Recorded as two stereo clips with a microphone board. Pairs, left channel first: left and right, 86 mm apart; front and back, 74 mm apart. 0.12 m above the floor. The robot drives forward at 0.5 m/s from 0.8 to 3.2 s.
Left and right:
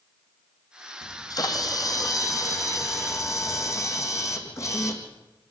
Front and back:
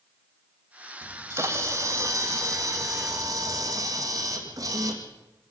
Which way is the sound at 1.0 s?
125° left.